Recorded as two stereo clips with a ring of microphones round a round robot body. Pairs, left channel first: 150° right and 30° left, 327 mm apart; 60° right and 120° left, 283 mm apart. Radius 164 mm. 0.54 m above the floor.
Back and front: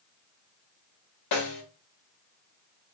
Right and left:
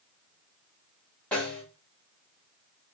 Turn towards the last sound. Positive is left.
turn(degrees=-145)